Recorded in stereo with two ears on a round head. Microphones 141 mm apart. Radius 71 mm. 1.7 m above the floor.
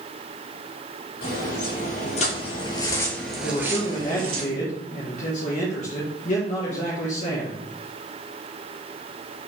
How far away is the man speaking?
About 1.3 m.